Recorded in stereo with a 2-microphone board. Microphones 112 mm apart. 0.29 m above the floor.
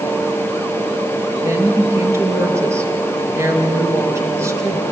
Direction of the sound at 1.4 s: 25° right (ahead or behind).